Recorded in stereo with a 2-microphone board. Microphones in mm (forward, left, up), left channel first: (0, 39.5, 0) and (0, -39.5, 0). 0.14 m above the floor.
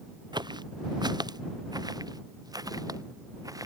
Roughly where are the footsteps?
Right.